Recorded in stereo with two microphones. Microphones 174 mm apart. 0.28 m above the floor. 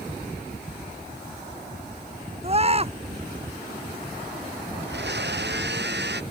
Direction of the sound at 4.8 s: 80° right.